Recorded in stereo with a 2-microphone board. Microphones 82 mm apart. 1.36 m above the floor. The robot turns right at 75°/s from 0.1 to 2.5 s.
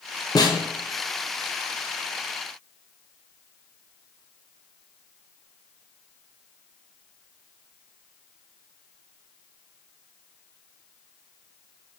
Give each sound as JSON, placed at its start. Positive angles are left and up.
{"t": 0.3, "sound": "a snare drum", "side_deg": 55, "distance_m": 1.0}